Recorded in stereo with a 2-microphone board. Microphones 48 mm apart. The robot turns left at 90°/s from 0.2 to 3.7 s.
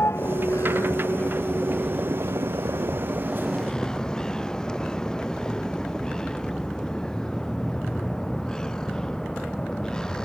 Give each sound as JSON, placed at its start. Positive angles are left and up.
{"t": 0.0, "sound": "a vehicle", "azimuth_deg": 120}